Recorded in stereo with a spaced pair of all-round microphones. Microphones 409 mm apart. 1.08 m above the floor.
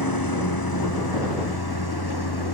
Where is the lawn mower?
55° left (ahead or behind); by 2.5 s 65° left (ahead or behind).